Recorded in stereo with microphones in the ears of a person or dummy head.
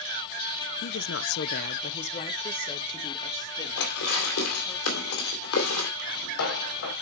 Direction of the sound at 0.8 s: 45° left (ahead or behind).